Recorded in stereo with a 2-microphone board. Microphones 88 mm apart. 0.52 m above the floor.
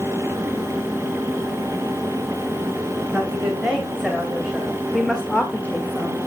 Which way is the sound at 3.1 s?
10° right (ahead or behind).